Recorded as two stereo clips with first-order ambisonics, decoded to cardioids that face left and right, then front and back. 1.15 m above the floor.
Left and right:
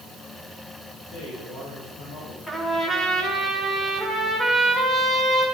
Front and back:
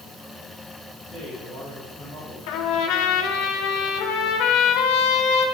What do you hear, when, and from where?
1.1 s a man speaking: 110° left, 4 m
2.5 s a trumpet: 10° left, 2.5 m